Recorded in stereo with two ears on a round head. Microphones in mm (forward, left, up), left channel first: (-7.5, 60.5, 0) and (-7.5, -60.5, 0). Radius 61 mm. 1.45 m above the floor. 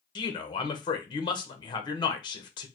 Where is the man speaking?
35° left (ahead or behind), 0.9 m.